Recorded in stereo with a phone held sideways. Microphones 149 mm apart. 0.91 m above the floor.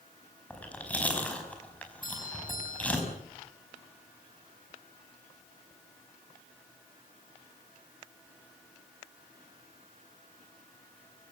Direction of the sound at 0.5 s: 10° left (ahead or behind).